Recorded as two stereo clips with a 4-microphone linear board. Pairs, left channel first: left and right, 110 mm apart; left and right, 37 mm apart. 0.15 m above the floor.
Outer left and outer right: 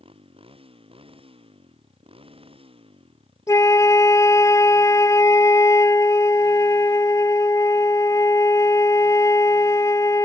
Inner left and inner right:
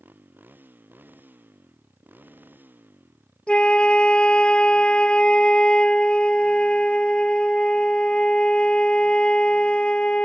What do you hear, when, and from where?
0.0 s a motorcycle: 60° right (ahead or behind)
3.5 s a flute: 30° left (ahead or behind)